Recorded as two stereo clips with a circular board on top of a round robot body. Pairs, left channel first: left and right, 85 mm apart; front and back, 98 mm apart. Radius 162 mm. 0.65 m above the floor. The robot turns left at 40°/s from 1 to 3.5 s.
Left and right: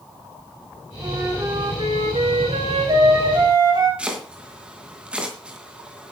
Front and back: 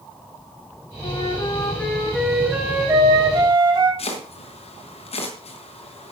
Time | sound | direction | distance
1.0 | a flute | 40° right | 4 m
4.0 | chopping | 15° right | 3 m